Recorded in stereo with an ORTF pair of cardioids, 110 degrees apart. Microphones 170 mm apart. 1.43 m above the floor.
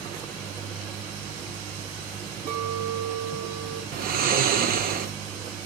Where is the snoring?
60° right, 0.9 m.